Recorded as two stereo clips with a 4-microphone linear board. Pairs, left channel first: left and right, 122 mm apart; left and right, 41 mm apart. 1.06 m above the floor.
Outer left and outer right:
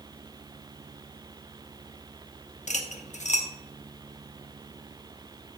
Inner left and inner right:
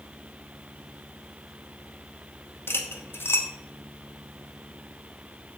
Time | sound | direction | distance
2.7 | cutlery clinking | 75° left (ahead or behind) | 1.0 m